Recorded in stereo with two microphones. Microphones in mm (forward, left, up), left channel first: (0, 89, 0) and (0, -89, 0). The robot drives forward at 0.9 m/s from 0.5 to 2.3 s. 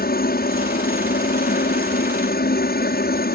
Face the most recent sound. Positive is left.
turn(degrees=65)  # may be behind; listen again after turning